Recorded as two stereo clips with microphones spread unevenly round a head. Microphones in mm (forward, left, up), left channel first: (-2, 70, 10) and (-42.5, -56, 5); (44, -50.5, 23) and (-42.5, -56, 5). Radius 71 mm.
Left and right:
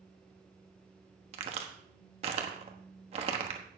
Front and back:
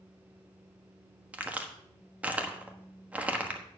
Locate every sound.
1.3 s a crack: 100° right, 1.2 m